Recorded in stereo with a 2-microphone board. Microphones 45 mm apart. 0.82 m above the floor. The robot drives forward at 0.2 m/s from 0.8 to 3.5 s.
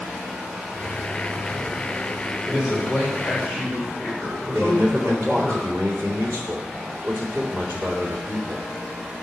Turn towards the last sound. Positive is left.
turn(degrees=-70)  # may be behind; listen again after turning